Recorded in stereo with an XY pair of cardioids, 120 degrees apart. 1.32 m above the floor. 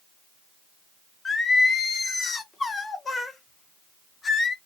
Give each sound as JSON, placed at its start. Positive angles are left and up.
{"t": 1.2, "sound": "singing", "azimuth_deg": 30, "distance_m": 0.7}